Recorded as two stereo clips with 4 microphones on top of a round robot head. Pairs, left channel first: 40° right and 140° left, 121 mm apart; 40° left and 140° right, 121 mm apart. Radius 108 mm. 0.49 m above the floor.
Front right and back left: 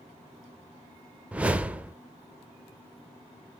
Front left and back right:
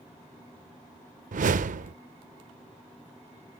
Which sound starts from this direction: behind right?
A whoosh, at 1.3 s.